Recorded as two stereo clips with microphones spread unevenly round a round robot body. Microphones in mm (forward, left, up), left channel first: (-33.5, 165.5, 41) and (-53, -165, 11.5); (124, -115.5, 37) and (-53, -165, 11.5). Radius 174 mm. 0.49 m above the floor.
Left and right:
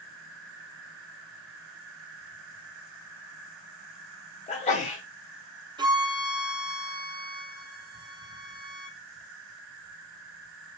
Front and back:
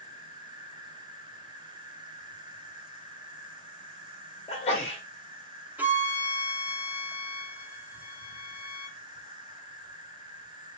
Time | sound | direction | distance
0.0 | an insect | 95° right | 1.5 m
4.5 | a sneeze | 35° left | 0.7 m
5.8 | a violin | 125° right | 0.7 m